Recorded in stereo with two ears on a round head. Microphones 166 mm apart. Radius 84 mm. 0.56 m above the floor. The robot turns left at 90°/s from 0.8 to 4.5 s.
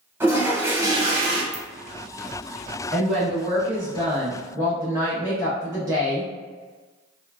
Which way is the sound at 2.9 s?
5° left (ahead or behind).